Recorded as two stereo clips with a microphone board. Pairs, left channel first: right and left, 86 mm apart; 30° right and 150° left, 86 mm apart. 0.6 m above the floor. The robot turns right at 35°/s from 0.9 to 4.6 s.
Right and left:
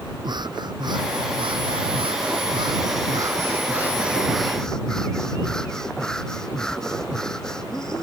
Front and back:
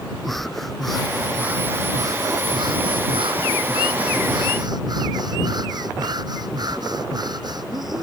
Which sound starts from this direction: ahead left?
Breathing, at 0.2 s.